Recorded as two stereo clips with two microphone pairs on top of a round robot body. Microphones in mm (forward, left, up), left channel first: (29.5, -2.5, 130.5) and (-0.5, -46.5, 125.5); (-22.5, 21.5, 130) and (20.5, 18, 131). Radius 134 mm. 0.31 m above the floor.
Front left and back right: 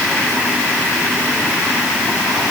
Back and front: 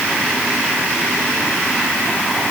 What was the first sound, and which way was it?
Only background noise.